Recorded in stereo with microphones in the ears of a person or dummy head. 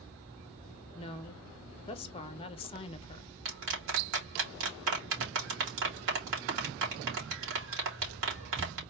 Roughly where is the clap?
Right.